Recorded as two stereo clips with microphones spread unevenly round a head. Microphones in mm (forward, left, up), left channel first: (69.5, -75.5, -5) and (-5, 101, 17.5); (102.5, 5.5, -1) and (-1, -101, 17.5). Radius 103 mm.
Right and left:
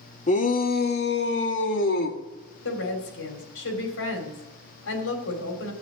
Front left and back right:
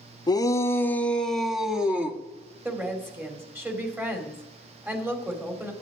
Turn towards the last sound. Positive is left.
turn(degrees=-55)